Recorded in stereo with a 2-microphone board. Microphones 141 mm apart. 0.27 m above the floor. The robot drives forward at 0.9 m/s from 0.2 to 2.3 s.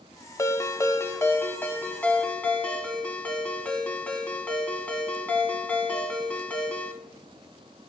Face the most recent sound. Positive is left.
turn(degrees=10)  # may be behind; listen again after turning